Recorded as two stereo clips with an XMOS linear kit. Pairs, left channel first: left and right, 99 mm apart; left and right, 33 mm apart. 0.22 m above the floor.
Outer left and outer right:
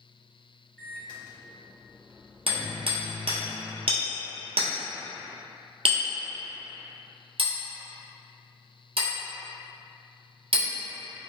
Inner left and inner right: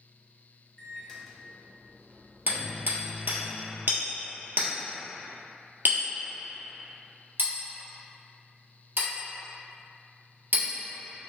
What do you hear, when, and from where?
0.8 s a microwave: 10° left (ahead or behind), 1.0 m
2.5 s hammering: 70° right (ahead or behind), 1.6 m